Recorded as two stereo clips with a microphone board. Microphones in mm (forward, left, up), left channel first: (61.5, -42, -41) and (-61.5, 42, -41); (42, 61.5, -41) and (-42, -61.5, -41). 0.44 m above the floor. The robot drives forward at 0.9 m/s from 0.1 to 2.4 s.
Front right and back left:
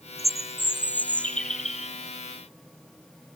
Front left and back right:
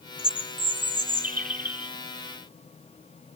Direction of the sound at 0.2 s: 100° right.